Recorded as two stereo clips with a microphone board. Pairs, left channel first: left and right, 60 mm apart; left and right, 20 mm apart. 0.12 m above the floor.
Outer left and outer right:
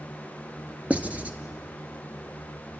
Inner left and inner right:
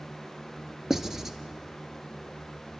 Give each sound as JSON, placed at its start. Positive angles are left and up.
{"t": 0.9, "sound": "writing", "side_deg": -20, "distance_m": 1.2}